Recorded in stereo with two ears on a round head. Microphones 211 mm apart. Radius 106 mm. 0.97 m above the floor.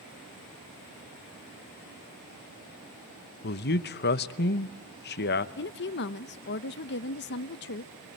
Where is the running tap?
No running tap in this recording.